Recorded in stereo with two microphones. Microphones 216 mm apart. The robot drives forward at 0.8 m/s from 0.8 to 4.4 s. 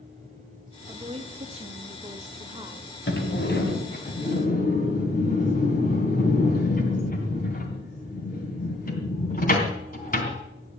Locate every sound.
0.9 s a woman speaking: 25° right (ahead or behind), 1.3 m; by 2.9 s 20° right (ahead or behind), 1.7 m
3.1 s a sliding door: 55° left (ahead or behind), 2.5 m; by 10.4 s 40° left (ahead or behind), 3 m